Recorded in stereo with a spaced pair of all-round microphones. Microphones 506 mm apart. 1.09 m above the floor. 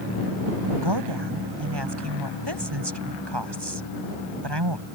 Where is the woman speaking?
55° right (ahead or behind).